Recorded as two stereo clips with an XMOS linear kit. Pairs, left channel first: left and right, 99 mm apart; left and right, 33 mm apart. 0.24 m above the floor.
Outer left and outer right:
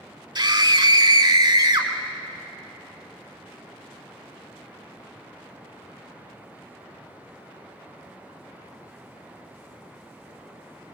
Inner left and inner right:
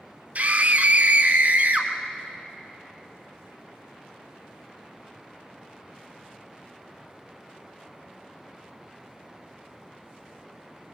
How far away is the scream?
About 2.5 m.